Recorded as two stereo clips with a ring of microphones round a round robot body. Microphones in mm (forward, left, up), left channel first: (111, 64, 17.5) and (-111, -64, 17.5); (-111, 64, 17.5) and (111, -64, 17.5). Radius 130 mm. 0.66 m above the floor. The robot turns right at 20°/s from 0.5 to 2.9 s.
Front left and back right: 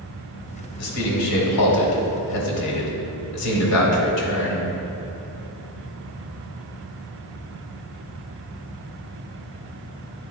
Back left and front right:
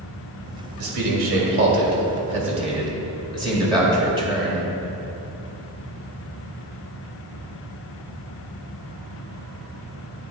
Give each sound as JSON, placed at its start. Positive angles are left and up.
{"t": 0.8, "sound": "a man speaking", "azimuth_deg": 0, "distance_m": 1.8}